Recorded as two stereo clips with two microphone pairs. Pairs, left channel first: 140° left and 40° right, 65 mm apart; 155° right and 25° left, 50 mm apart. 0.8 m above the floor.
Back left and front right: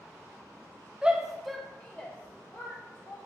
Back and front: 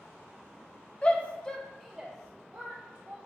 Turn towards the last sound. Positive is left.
turn(degrees=90)